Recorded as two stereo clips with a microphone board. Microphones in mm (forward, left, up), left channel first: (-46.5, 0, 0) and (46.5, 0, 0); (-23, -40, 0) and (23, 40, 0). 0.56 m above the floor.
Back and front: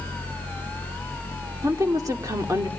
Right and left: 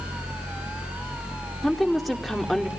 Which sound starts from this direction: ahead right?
A woman speaking, at 1.6 s.